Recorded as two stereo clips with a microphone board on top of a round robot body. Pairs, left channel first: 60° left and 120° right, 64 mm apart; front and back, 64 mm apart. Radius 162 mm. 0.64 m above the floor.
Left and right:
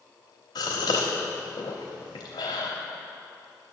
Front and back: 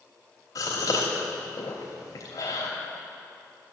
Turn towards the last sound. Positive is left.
turn(degrees=40)